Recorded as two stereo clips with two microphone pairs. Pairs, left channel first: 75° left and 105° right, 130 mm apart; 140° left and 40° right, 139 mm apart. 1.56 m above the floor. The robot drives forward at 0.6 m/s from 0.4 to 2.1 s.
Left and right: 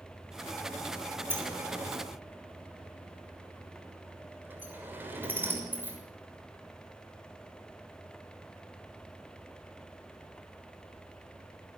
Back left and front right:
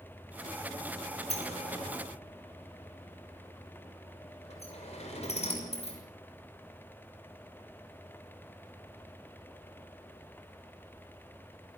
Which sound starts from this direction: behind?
A sliding door, at 1.3 s.